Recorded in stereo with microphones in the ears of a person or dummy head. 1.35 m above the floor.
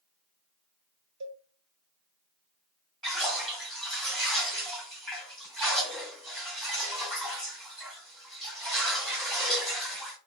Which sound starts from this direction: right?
A cowbell, at 1.2 s.